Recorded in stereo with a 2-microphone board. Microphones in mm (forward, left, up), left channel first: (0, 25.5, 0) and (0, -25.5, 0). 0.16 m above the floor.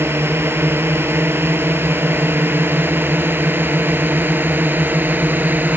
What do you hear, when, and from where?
0.0 s a drone: 50° right (ahead or behind); by 5.8 s 35° right (ahead or behind)